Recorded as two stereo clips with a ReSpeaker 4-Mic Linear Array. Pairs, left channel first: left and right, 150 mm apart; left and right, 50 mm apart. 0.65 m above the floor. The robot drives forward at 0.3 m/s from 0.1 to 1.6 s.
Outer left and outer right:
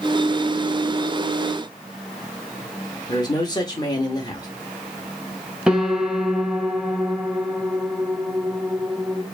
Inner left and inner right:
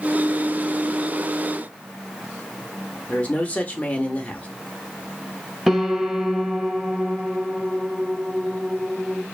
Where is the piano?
5° right (ahead or behind), 0.5 m.